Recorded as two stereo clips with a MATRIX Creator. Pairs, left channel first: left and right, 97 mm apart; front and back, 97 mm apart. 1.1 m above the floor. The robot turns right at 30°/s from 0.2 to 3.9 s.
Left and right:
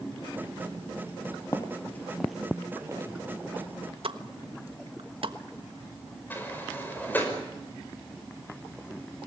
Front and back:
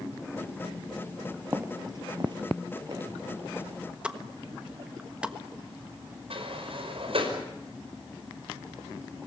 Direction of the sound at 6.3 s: 160° left.